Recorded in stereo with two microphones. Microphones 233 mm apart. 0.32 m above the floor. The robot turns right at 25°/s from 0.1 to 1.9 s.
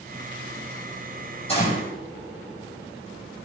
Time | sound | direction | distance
1.5 | a gunshot | 25° left (ahead or behind) | 6 m